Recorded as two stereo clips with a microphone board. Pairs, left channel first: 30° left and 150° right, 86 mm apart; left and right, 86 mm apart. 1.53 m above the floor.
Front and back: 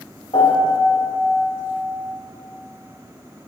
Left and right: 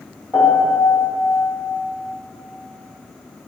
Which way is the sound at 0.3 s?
20° left.